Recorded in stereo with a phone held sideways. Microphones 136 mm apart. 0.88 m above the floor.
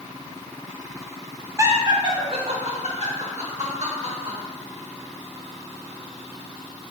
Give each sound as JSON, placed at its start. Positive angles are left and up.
{"t": 1.6, "sound": "laughter", "side_deg": -20, "distance_m": 1.0}